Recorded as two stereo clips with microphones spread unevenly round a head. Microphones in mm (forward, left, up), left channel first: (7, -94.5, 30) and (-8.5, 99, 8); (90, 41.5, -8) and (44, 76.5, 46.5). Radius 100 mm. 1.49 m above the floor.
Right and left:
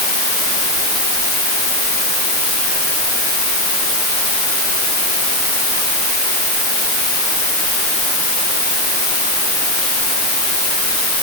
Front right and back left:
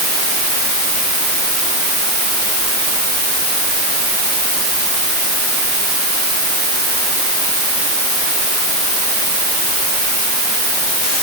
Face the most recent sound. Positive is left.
No sound to turn to.